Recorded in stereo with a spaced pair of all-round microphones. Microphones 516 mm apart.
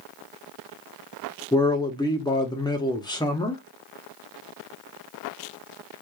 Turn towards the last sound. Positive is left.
turn(degrees=10)  # may be behind; listen again after turning